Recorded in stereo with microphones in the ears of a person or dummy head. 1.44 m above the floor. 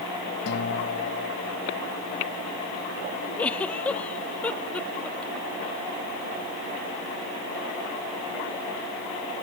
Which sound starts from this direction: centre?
A giggle, at 3.4 s.